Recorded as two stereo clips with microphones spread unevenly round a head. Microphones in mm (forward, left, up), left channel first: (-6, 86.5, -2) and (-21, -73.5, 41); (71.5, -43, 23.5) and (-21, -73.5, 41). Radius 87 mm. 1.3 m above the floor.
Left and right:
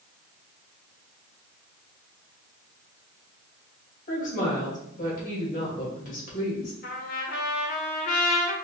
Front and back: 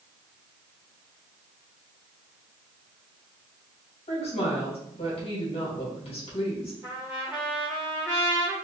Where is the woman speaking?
45° left, 2.5 m.